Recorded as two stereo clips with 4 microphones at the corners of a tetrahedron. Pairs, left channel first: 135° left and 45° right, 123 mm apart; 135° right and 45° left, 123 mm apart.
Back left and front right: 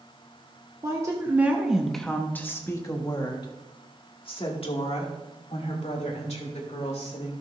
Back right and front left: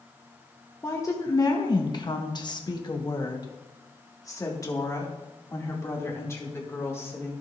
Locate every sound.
0.8 s a woman speaking: 80° right, 1.2 m; by 7.3 s 155° left, 3.5 m